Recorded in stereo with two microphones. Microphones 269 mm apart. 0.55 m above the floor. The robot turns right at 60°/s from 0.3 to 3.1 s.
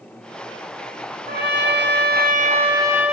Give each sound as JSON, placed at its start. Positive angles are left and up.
{"t": 1.3, "sound": "a trumpet", "azimuth_deg": -115, "distance_m": 1.0}